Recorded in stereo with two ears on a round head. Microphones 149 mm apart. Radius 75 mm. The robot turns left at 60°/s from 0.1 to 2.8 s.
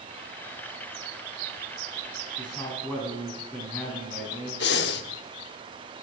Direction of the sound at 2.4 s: 35° left (ahead or behind).